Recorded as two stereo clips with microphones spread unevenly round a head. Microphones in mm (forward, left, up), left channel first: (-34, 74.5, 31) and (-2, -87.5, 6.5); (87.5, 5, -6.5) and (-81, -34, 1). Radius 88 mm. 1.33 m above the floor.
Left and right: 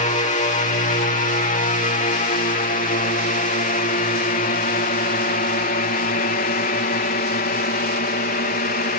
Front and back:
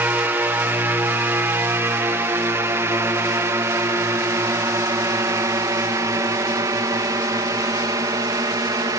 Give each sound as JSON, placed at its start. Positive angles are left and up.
{"t": 0.0, "sound": "a drone", "azimuth_deg": 120}